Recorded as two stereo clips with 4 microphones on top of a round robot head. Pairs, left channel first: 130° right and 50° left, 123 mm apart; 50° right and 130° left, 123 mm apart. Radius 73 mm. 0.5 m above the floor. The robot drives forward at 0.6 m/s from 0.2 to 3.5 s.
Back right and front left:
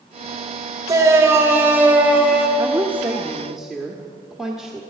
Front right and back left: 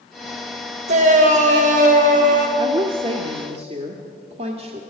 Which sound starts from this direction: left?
A woman speaking, at 2.6 s.